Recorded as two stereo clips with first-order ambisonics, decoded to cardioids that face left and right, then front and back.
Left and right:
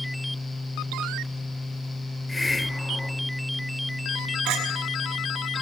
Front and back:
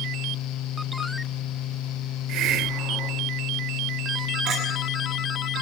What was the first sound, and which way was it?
A hiss, 170° left.